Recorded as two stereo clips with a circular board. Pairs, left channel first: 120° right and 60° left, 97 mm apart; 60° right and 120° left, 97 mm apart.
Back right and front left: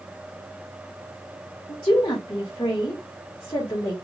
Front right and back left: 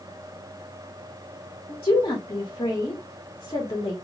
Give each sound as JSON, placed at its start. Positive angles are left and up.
{"t": 1.7, "sound": "a woman speaking", "azimuth_deg": -75, "distance_m": 1.6}